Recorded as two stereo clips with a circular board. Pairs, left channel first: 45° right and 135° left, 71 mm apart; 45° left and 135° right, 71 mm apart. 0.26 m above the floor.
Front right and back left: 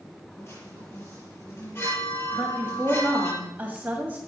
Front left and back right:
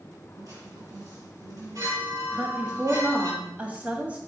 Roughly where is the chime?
Right.